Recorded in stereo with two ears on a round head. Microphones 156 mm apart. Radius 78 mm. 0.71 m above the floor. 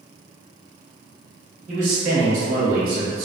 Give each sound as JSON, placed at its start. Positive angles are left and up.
{"t": 1.7, "sound": "a man speaking", "side_deg": -45, "distance_m": 1.7}